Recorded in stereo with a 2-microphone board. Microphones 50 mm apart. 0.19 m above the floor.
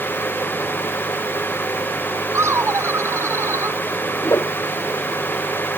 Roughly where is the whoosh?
Left.